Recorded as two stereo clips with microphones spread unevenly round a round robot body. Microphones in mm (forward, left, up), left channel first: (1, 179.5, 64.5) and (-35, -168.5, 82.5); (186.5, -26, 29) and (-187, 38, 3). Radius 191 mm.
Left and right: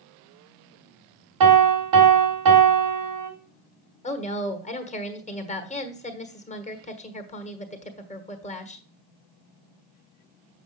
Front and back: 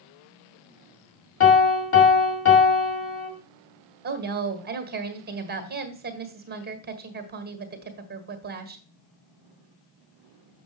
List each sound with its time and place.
1.4 s a piano: 70° right, 2 m
4.0 s a woman speaking: 135° left, 1.5 m